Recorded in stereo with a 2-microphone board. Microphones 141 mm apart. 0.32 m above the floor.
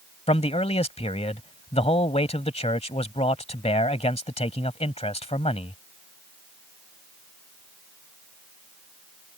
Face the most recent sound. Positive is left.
turn(degrees=45)  # may be behind; listen again after turning